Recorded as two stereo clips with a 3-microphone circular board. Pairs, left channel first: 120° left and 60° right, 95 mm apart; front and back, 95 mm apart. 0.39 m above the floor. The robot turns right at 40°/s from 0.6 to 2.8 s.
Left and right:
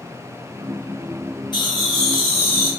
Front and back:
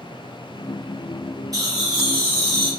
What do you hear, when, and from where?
1.5 s laughter: 135° left, 1.7 m; by 2.7 s 175° right, 1.7 m